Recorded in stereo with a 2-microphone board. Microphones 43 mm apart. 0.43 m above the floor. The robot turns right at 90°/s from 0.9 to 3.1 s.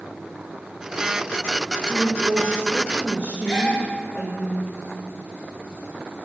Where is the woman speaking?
155° right, 1.4 m; by 4.5 s 45° right, 1.4 m.